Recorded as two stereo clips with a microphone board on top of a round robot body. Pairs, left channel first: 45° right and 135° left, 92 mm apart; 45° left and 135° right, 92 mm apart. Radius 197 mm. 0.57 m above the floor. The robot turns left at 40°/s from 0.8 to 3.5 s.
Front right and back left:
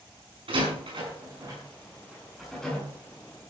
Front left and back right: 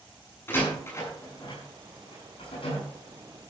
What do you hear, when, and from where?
0.5 s a door slam: 110° left, 7 m; by 2.8 s 30° left, 7 m